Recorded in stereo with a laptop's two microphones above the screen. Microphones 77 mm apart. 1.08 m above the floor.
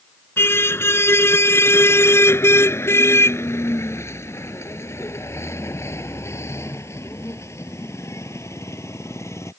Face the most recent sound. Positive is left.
turn(degrees=40)  # may be behind; listen again after turning